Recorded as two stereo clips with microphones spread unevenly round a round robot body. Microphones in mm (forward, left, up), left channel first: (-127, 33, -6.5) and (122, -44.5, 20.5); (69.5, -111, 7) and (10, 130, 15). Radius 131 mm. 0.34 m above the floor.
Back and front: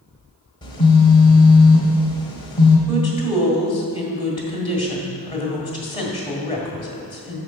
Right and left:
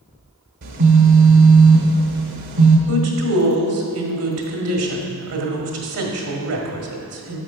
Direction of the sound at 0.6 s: 100° left.